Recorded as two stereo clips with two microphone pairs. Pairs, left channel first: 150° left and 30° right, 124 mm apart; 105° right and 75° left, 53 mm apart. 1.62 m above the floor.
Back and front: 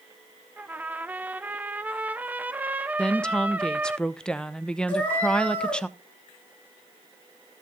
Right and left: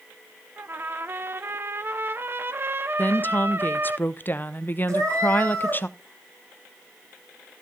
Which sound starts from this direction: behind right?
A woman speaking, at 3.0 s.